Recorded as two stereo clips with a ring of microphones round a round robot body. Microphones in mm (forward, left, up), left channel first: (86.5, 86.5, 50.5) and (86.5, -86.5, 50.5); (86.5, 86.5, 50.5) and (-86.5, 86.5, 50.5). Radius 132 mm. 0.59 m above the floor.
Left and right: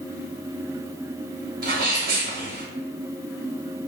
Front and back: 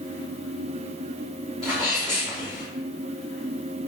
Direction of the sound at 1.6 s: 85° right.